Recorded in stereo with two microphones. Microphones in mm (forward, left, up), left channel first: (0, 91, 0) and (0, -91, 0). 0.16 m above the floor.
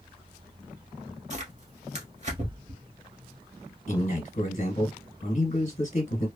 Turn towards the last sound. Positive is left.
turn(degrees=45)  # may be behind; listen again after turning